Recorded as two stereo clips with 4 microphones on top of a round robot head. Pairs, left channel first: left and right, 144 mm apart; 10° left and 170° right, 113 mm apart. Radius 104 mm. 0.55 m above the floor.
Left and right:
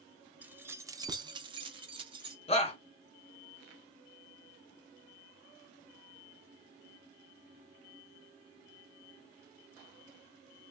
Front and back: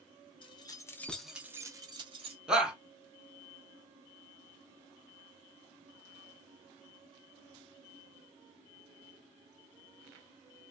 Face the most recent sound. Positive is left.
turn(degrees=110)